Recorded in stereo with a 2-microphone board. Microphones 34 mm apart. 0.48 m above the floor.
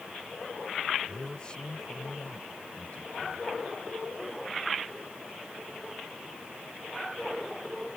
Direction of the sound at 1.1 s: 20° left (ahead or behind).